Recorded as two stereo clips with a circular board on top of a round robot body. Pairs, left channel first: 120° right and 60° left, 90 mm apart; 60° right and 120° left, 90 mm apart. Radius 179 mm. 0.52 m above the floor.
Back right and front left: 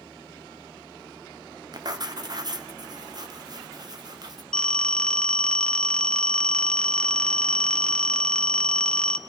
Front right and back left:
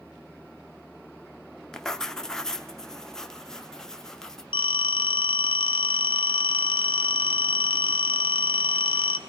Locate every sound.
1.7 s writing: 25° left, 1.3 m
4.5 s a phone ringing: 40° right, 1.0 m